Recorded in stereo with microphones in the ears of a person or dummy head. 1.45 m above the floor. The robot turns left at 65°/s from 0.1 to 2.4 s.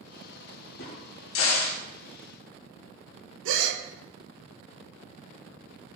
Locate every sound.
0.8 s a crack: 55° left (ahead or behind), 2 m; by 1.8 s 60° left (ahead or behind), 2 m
3.5 s a gasp: 75° right (ahead or behind), 1.1 m